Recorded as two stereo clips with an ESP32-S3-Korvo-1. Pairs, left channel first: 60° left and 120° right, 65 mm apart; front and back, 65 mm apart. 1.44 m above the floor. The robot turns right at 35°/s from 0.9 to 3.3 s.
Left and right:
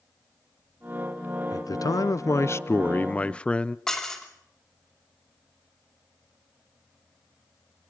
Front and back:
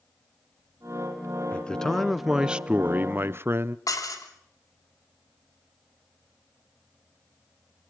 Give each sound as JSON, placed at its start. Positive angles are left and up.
{"t": 1.5, "sound": "a man speaking", "azimuth_deg": 70, "distance_m": 0.7}
{"t": 3.9, "sound": "dishes clattering", "azimuth_deg": -20, "distance_m": 3.0}